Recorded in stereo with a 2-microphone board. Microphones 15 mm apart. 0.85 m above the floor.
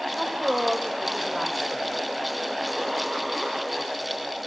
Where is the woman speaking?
55° right (ahead or behind), 3 m.